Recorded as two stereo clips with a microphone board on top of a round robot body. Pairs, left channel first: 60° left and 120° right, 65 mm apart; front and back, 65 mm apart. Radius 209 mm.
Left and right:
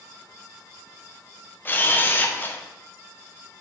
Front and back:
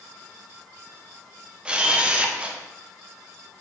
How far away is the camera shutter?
About 1.0 m.